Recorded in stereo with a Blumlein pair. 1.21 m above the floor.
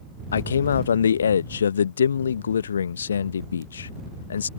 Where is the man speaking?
70° left.